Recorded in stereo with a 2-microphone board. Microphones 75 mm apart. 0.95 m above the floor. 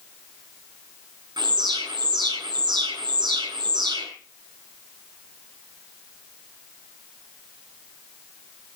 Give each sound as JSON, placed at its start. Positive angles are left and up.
{"t": 1.4, "sound": "an alarm", "side_deg": -80, "distance_m": 7.0}